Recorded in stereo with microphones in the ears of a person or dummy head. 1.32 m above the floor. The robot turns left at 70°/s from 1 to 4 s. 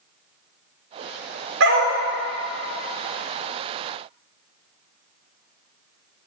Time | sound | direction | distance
1.6 | a dog barking | 65° right (ahead or behind) | 1.6 m